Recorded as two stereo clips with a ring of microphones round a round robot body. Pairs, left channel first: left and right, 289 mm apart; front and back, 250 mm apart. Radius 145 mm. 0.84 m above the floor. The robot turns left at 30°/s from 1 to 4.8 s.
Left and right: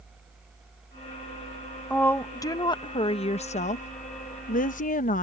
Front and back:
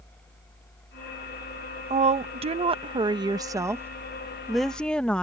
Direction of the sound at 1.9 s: 170° left.